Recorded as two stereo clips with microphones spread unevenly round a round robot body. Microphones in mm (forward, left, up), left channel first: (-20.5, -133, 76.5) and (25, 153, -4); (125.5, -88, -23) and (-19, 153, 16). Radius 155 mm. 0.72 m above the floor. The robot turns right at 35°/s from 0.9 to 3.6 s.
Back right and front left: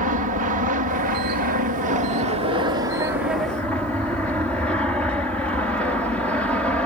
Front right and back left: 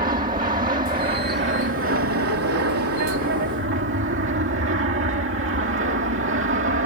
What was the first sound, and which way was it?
An aircraft, 65° left.